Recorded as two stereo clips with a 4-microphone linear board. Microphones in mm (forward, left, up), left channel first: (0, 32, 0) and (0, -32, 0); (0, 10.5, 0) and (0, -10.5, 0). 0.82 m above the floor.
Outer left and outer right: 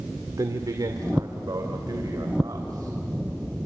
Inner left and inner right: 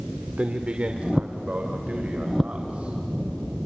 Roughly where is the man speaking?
Right.